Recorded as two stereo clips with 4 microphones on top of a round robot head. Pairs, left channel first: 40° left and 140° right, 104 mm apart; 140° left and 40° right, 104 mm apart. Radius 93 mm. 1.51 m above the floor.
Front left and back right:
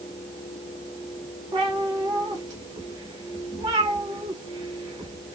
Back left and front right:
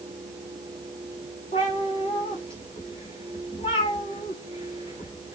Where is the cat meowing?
170° left, 1.2 m.